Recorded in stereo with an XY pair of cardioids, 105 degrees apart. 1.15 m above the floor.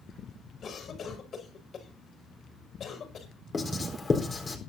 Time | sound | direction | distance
0.6 | a cough | 50° left | 6.5 m
3.5 | writing | 25° left | 4 m